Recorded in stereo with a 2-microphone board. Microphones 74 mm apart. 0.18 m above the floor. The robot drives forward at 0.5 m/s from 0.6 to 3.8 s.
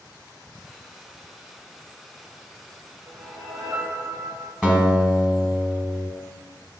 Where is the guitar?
10° right (ahead or behind), 0.9 m.